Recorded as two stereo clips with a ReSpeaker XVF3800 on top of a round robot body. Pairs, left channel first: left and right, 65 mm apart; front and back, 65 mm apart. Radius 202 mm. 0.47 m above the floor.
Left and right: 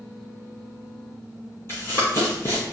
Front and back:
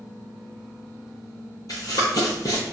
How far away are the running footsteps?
About 0.6 m.